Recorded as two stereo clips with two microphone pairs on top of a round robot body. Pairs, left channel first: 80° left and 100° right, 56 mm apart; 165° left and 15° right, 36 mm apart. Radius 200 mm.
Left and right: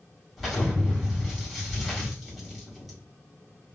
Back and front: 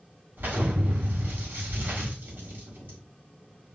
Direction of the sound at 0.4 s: 10° right.